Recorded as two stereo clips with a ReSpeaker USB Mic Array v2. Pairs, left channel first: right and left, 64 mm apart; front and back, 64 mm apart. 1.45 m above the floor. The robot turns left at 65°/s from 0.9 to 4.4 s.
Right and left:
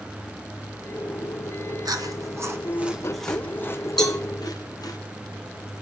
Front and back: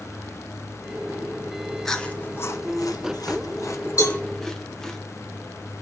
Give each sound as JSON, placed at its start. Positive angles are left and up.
{"t": 1.9, "sound": "chewing", "azimuth_deg": 85, "distance_m": 0.7}
{"t": 4.0, "sound": "a cowbell", "azimuth_deg": -5, "distance_m": 2.5}